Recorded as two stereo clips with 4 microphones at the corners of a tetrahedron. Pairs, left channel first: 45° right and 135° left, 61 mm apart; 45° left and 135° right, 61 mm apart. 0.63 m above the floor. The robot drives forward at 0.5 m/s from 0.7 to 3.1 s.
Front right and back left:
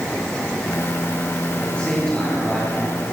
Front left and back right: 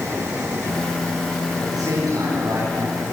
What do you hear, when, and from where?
1.6 s a man speaking: 120° right, 8.5 m; by 3.0 s 125° right, 9 m